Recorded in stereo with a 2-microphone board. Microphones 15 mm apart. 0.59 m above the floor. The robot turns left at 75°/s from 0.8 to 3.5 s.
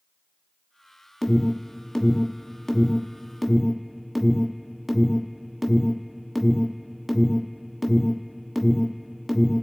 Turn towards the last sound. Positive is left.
turn(degrees=-10)  # may be behind; listen again after turning